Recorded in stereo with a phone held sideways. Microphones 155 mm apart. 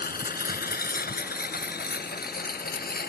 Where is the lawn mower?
75° left (ahead or behind); by 3.1 s 80° left.